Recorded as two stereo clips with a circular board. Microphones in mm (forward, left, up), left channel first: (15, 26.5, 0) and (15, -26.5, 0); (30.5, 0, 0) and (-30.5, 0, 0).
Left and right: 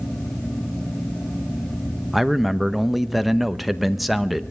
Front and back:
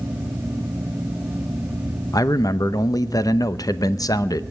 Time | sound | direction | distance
2.1 | a man speaking | straight ahead | 0.8 m